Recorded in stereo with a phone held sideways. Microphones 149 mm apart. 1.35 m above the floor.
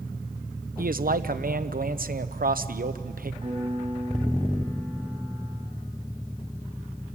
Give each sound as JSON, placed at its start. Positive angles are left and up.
{"t": 0.8, "sound": "a man speaking", "side_deg": -75, "distance_m": 0.8}
{"t": 3.4, "sound": "a piano", "side_deg": -40, "distance_m": 6.5}